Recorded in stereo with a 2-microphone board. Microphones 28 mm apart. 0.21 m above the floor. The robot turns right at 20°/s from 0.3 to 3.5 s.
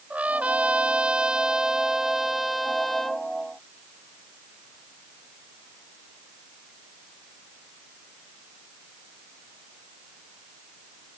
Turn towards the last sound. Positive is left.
turn(degrees=15)